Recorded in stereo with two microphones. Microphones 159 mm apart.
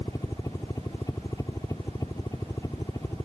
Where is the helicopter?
20° left (ahead or behind).